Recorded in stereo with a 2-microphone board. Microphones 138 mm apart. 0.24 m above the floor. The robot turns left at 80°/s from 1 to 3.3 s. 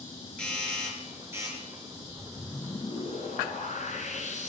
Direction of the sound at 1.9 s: 140° right.